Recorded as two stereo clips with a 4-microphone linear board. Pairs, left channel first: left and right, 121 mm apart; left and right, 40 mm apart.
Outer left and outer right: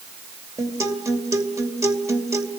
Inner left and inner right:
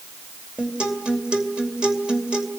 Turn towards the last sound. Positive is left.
turn(degrees=-25)  # may be behind; listen again after turning